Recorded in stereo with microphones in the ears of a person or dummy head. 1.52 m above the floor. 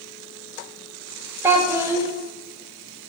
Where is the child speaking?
20° right (ahead or behind), 0.5 m.